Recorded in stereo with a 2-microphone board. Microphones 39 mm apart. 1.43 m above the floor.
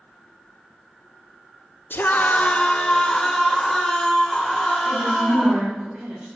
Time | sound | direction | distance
1.9 | a scream | 70° left (ahead or behind) | 1.3 m
4.8 | a woman speaking | 60° right (ahead or behind) | 6 m